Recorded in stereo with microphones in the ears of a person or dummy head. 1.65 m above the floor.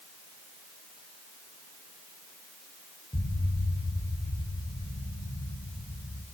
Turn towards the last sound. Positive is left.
turn(degrees=15)  # may be behind; listen again after turning